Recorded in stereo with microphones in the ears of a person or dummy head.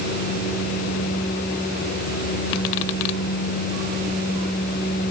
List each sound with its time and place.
Only background noise.